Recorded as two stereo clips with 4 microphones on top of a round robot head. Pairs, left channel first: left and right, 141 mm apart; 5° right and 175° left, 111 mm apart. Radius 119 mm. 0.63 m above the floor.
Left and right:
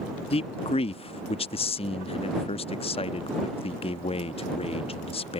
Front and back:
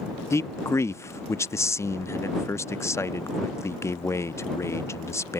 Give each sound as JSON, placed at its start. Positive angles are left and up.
{"t": 0.3, "sound": "a man speaking", "azimuth_deg": 55}